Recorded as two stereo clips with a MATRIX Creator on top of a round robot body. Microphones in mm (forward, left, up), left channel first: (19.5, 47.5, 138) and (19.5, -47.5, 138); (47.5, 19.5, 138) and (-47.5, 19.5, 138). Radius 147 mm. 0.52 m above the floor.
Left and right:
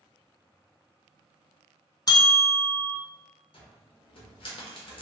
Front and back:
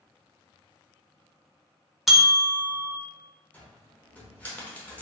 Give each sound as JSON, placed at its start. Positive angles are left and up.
{"t": 2.1, "sound": "a bell", "azimuth_deg": 95, "distance_m": 0.8}
{"t": 3.5, "sound": "a cupboard door", "azimuth_deg": 75, "distance_m": 0.9}